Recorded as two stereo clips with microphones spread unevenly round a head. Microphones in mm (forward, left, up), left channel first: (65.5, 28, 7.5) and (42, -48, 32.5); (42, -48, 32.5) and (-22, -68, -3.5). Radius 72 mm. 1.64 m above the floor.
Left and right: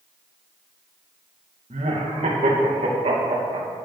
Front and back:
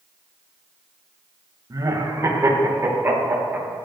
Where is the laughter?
130° right, 2.5 m; by 3.7 s 100° right, 3 m.